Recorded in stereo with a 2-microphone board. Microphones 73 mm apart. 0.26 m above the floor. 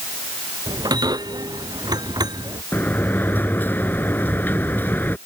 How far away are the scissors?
I don't hear scissors.